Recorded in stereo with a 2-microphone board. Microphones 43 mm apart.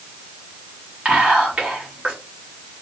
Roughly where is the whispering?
Right.